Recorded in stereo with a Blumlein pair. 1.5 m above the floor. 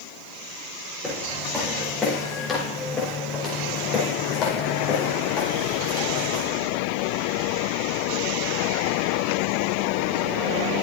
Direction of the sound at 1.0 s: 5° left.